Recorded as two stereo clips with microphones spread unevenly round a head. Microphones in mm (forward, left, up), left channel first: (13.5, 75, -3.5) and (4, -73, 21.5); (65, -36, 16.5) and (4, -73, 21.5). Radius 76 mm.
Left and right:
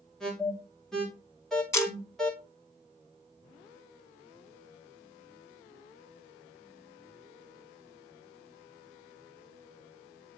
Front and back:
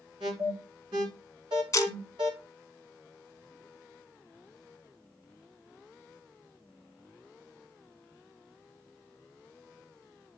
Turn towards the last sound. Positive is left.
turn(degrees=10)